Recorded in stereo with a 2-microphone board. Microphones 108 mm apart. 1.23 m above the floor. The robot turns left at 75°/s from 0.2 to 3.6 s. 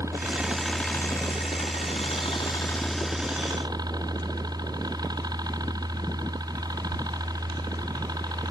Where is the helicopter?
150° right; by 8.5 s 45° right.